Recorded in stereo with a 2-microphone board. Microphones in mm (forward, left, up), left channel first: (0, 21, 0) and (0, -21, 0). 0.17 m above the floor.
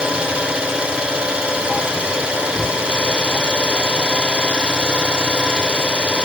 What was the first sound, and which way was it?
An engine running, 25° right (ahead or behind).